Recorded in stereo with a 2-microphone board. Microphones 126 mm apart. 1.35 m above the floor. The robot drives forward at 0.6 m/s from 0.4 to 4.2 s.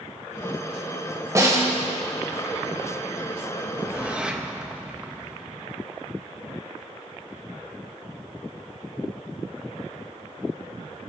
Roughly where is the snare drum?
Right.